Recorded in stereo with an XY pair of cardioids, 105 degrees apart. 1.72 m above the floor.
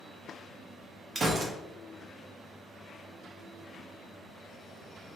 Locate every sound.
1.1 s a gunshot: 35° right, 0.7 m